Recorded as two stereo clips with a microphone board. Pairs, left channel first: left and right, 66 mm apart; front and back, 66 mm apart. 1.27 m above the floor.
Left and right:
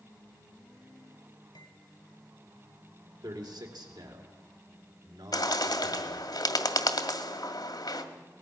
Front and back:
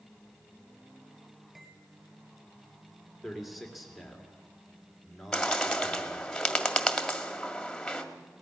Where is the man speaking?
90° right, 3 m.